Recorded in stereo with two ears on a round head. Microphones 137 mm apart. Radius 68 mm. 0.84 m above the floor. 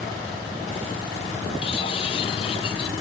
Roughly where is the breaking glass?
Left.